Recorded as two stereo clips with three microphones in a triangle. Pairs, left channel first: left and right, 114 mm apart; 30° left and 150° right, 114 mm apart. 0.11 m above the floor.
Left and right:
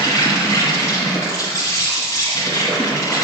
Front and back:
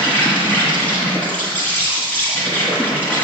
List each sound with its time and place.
0.0 s an insect: 85° left, 2.5 m